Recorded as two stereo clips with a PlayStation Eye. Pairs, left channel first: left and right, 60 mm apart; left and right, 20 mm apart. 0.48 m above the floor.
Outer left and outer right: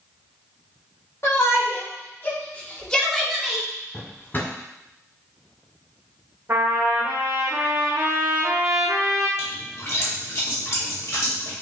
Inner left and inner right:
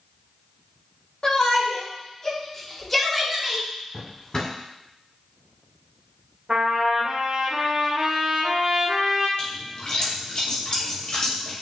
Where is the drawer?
35° left (ahead or behind), 1.3 m.